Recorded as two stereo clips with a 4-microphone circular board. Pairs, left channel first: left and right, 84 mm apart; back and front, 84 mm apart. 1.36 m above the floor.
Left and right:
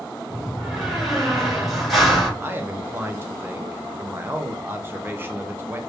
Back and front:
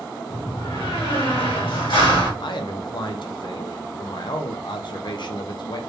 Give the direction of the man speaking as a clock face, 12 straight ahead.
5 o'clock.